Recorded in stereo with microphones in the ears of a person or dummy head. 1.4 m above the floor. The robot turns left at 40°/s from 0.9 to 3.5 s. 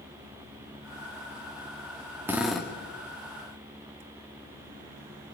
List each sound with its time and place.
2.3 s a drill: 10° right (ahead or behind), 2.5 m; by 2.7 s 10° left (ahead or behind), 2.5 m